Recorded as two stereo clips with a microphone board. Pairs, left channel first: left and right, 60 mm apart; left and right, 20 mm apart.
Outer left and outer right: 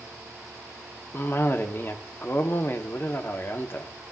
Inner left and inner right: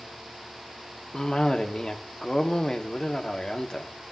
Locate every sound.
1.1 s a cough: 45° left (ahead or behind), 1.9 m